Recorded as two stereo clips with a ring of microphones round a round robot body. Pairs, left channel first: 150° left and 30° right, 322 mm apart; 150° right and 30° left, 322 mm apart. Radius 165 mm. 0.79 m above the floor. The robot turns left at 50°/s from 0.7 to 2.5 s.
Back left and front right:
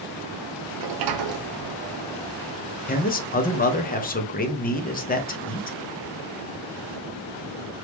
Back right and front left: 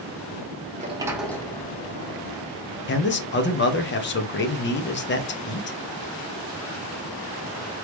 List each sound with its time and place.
0.8 s a sliding door: 35° right, 0.9 m; by 2.3 s 115° right, 0.9 m
2.9 s a man speaking: 170° right, 0.9 m